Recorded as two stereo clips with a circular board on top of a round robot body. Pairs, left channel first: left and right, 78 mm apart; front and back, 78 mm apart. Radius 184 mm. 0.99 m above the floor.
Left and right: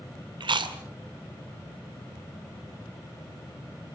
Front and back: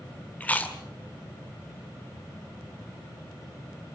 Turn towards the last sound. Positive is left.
turn(degrees=-70)